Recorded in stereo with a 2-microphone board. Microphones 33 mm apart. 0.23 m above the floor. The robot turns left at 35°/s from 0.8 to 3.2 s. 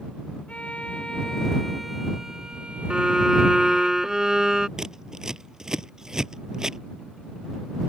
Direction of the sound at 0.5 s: 40° left.